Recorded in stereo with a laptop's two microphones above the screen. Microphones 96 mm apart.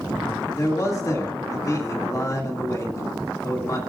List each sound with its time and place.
0.6 s a man speaking: 35° left (ahead or behind), 2 m